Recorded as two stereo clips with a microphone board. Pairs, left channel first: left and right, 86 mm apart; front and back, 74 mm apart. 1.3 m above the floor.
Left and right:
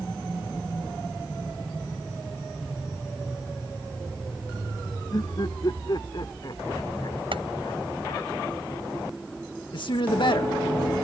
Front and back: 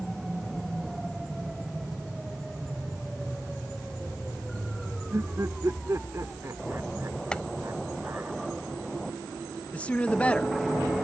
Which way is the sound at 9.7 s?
70° left.